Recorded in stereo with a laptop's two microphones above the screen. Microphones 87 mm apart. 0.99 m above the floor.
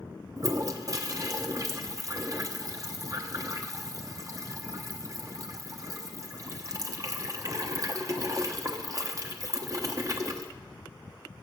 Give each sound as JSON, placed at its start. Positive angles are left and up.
{"t": 0.4, "sound": "a toilet flushing", "side_deg": -40, "distance_m": 1.1}